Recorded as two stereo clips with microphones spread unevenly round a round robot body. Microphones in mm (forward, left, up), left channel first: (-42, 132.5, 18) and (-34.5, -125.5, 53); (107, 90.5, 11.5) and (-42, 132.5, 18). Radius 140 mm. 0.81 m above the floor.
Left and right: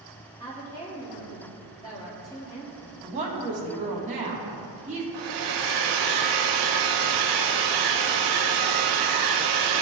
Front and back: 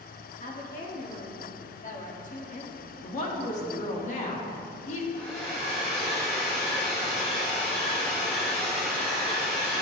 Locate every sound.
0.4 s a woman speaking: 15° left, 1.6 m
3.0 s a woman speaking: 25° right, 1.2 m
5.1 s a hair dryer: 85° right, 0.6 m